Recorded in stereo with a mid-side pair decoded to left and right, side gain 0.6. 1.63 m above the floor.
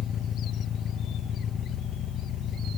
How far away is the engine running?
About 1.5 m.